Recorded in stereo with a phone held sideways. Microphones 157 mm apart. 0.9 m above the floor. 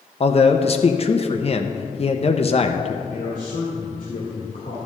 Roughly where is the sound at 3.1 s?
Left.